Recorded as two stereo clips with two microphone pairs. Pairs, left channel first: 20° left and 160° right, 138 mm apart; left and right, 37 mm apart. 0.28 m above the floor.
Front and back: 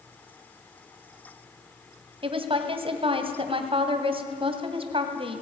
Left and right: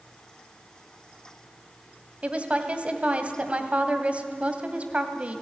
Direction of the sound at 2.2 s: 130° right.